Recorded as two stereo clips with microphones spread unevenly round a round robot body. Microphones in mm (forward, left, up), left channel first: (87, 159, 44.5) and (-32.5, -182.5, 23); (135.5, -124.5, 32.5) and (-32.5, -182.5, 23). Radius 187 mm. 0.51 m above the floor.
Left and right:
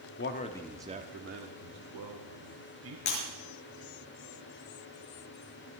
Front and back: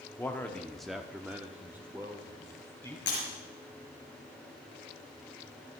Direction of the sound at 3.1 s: 70° left.